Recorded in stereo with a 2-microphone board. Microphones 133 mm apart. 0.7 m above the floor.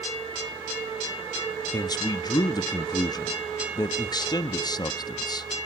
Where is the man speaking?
30° left (ahead or behind), 0.8 m.